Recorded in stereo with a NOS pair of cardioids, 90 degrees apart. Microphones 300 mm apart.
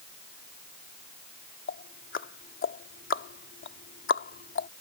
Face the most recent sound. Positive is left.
turn(degrees=40)